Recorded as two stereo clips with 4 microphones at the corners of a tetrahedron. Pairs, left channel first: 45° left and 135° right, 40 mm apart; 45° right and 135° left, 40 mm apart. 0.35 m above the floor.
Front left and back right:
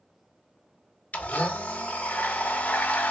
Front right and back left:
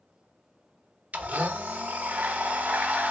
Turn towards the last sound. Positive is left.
turn(degrees=90)